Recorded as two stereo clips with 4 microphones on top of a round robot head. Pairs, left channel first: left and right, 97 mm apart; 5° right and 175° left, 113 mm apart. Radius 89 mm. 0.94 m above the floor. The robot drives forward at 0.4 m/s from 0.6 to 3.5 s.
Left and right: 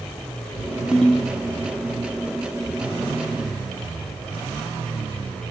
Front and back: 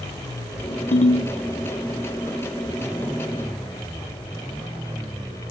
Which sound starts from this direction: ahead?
A ringtone, at 0.9 s.